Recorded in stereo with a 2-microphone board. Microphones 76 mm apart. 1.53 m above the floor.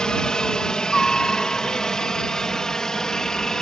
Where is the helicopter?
10° left (ahead or behind); by 3.6 s 5° left (ahead or behind).